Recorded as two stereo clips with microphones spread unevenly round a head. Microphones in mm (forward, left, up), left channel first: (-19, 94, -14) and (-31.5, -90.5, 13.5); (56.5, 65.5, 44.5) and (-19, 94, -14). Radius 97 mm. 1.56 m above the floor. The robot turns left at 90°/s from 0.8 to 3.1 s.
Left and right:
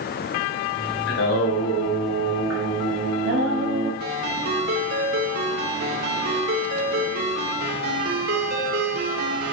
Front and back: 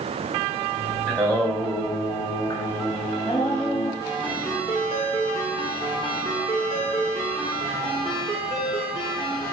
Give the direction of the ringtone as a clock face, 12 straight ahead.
2 o'clock.